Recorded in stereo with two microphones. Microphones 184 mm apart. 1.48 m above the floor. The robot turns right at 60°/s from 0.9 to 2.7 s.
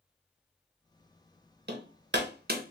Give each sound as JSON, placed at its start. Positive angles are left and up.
{"t": 1.7, "sound": "hammering", "side_deg": -65, "distance_m": 0.8}